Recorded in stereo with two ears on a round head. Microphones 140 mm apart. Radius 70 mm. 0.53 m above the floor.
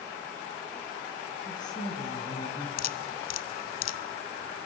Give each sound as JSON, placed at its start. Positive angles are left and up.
{"t": 1.4, "sound": "a woman speaking", "side_deg": 30, "distance_m": 5.0}
{"t": 2.8, "sound": "dripping", "side_deg": 60, "distance_m": 0.9}